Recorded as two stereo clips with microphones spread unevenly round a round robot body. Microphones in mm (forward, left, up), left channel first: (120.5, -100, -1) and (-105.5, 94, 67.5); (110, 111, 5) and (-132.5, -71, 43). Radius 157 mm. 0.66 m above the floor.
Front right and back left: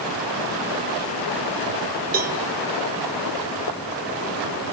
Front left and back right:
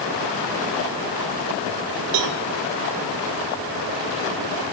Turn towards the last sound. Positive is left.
turn(degrees=-160)